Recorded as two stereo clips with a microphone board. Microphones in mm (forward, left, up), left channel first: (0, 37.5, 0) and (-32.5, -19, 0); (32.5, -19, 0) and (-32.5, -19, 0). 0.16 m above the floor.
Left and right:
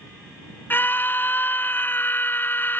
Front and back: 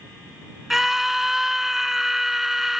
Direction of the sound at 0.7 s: 95° left.